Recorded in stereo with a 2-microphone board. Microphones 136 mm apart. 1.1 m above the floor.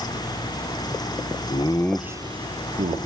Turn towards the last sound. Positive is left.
turn(degrees=-65)  # may be behind; listen again after turning